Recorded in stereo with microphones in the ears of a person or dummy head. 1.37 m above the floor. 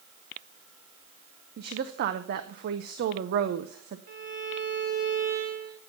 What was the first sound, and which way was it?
A woman speaking, 50° right (ahead or behind).